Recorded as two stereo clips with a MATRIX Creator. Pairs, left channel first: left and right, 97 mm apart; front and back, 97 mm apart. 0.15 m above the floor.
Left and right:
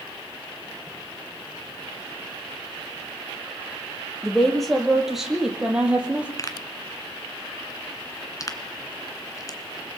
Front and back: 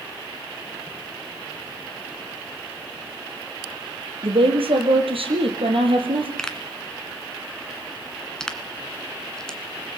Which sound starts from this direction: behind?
A woman speaking, at 4.2 s.